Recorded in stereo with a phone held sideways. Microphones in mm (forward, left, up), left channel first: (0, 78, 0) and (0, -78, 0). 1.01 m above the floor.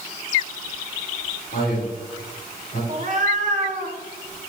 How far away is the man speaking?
About 3 m.